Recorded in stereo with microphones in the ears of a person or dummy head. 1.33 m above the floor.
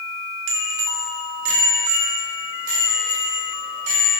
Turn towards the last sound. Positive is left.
turn(degrees=-40)  # may be behind; listen again after turning